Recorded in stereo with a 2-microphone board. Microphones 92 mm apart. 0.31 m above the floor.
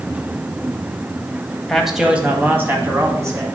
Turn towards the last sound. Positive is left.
turn(degrees=-35)  # may be behind; listen again after turning